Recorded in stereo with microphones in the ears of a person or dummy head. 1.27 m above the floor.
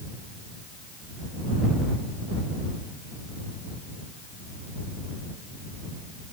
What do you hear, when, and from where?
Only background noise.